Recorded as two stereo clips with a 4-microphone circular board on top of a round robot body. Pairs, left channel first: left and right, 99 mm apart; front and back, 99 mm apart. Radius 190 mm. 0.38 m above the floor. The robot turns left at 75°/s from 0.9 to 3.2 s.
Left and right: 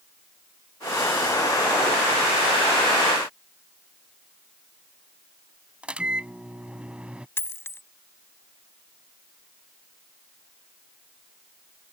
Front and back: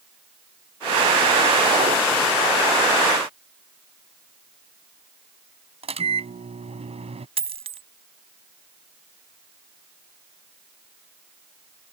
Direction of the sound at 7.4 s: 155° left.